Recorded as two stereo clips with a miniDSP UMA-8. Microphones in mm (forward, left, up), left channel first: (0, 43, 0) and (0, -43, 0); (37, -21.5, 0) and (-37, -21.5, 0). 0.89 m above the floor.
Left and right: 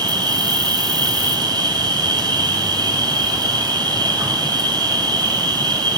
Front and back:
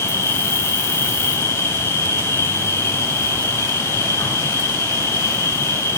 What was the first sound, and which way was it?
An insect, 55° right.